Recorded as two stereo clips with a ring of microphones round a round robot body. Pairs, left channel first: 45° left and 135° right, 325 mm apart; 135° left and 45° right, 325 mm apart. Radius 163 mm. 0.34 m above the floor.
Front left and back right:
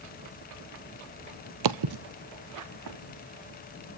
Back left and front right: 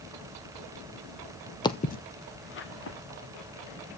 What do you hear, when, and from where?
1.6 s footsteps: 145° right, 0.7 m; by 3.0 s 170° right, 2.5 m